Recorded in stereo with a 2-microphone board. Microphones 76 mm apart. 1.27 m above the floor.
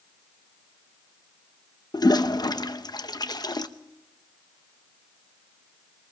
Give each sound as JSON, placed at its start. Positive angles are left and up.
{"t": 1.9, "sound": "a toilet flushing", "side_deg": 65, "distance_m": 0.8}